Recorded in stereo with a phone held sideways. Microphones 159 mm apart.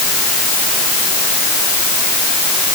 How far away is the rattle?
I don't hear a rattle.